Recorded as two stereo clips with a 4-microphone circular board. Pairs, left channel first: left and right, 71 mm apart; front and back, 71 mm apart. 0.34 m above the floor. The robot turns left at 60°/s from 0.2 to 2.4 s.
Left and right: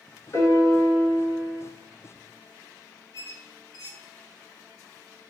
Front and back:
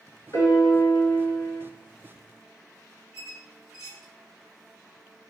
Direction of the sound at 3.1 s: 100° right.